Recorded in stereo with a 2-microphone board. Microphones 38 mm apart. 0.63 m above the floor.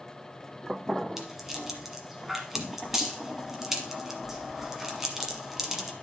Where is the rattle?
10° right (ahead or behind), 1.4 m.